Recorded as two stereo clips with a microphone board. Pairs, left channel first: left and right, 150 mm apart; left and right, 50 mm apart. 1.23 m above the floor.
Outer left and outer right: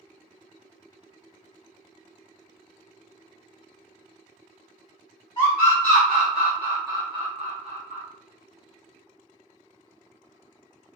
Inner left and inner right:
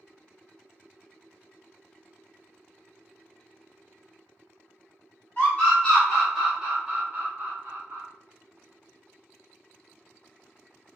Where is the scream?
25° left (ahead or behind), 1.2 m; by 8.0 s 60° right (ahead or behind), 1.1 m.